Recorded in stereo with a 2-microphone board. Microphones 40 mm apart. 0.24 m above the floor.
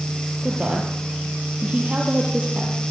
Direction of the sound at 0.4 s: 35° right (ahead or behind).